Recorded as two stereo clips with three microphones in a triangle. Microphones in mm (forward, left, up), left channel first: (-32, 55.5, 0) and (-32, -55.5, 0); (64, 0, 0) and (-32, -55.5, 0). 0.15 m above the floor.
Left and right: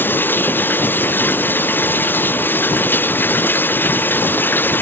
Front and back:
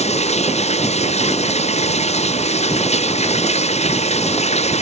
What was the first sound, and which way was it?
Running water, 20° left.